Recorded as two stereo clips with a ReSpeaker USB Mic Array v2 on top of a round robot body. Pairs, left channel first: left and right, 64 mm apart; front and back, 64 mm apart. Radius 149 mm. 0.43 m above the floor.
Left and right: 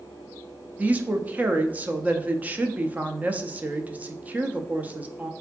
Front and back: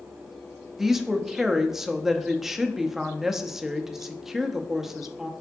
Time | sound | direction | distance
0.8 | a woman speaking | 105° right | 0.8 m